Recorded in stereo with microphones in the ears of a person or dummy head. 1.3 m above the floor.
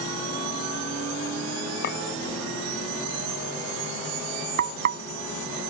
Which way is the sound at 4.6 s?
55° right (ahead or behind).